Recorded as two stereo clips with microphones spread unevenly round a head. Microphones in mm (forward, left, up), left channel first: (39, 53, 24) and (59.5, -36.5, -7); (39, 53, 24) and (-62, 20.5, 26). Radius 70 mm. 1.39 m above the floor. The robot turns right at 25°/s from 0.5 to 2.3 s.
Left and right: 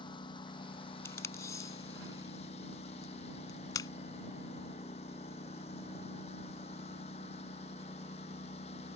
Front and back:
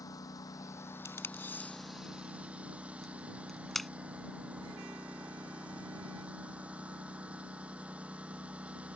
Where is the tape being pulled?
75° left; by 3.9 s 105° left.